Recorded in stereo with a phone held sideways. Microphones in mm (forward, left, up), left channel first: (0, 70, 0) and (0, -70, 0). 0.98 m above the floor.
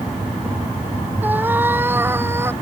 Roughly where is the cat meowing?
Centre.